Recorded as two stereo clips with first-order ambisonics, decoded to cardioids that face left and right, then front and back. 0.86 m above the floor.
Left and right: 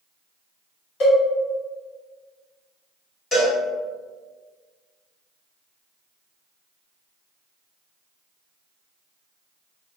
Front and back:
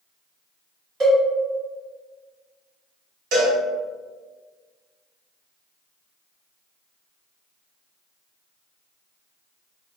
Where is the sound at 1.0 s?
125° left, 1.4 m.